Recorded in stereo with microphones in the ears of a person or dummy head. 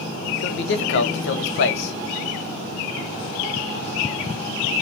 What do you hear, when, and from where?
0.4 s a man speaking: 65° left (ahead or behind), 0.6 m